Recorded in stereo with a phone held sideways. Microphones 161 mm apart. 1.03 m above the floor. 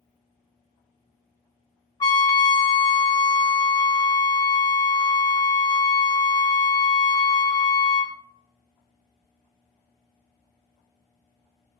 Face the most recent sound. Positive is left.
turn(degrees=25)  # may be behind; listen again after turning